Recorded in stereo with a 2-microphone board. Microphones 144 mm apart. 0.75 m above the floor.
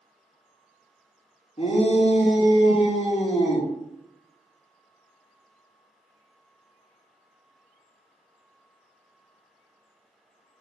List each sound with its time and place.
1.6 s a shout: 40° left (ahead or behind), 0.7 m